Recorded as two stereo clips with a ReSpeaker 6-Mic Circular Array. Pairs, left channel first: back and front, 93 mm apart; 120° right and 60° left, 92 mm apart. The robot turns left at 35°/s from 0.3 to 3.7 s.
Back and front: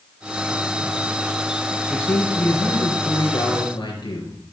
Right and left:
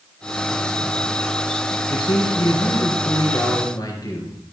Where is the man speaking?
100° right, 3 m; by 4.4 s 165° right, 3 m.